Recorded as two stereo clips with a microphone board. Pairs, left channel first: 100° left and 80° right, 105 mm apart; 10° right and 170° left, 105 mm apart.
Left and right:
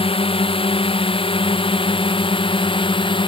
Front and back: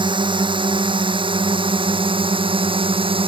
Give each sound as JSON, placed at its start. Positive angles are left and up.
{"t": 0.0, "sound": "a drone", "azimuth_deg": 130}